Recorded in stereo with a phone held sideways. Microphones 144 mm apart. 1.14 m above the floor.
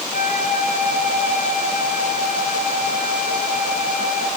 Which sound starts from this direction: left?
A flute, at 0.1 s.